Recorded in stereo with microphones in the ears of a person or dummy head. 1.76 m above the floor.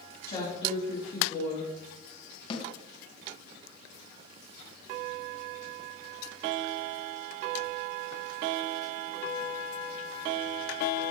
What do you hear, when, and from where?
0.3 s a woman speaking: 25° left (ahead or behind), 3.5 m
2.5 s a snare drum: 35° left (ahead or behind), 2 m